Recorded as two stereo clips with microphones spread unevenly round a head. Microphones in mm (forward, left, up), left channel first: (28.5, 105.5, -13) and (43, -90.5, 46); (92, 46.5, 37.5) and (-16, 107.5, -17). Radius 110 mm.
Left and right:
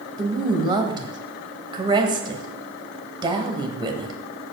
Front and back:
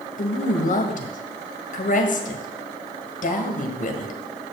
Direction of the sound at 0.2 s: 15° right.